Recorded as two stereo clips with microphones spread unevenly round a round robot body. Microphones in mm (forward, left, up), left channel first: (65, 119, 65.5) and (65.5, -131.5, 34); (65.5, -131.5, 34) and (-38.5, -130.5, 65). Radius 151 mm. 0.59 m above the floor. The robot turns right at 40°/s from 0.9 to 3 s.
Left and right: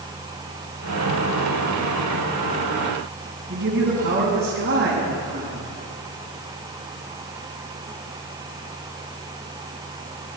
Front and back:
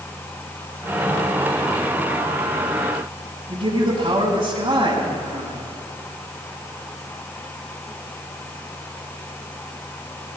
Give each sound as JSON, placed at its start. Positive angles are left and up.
{"t": 3.5, "sound": "a man speaking", "azimuth_deg": -140, "distance_m": 5.5}